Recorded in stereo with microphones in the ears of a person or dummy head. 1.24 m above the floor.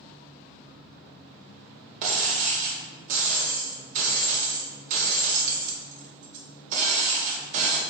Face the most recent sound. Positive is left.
turn(degrees=-45)  # may be behind; listen again after turning